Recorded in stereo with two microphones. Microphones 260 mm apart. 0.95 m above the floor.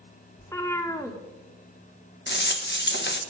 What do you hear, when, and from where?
0.4 s a cat meowing: 10° left (ahead or behind), 1.2 m
2.3 s a rattle: 45° left (ahead or behind), 0.9 m